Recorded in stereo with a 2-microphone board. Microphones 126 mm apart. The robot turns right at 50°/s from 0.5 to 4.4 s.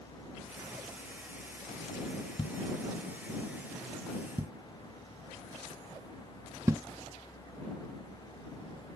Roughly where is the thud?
Left.